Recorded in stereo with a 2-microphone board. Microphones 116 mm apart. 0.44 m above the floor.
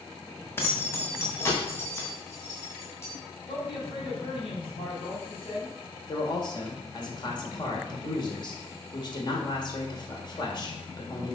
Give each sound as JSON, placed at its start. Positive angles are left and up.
{"t": 0.6, "sound": "keys jangling", "side_deg": 20, "distance_m": 1.7}
{"t": 3.5, "sound": "a man speaking", "side_deg": 50, "distance_m": 3.0}
{"t": 6.1, "sound": "a man speaking", "side_deg": 45, "distance_m": 2.0}